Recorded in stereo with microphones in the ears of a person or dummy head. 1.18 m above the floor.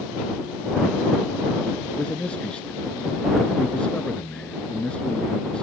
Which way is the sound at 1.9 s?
Centre (ahead or behind).